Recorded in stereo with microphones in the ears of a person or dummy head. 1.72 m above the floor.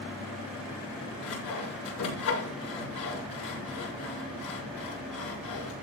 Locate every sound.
1.2 s sawing: 90° left, 8 m